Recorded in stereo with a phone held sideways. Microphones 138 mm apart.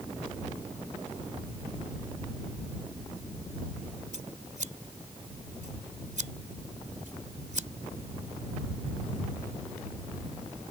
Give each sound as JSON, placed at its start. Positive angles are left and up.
{"t": 4.1, "sound": "scissors", "side_deg": -65}